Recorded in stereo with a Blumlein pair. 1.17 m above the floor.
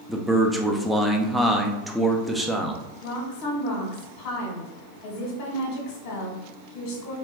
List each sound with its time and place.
0.1 s a man speaking: straight ahead, 0.6 m
3.0 s a woman speaking: 35° left, 1.1 m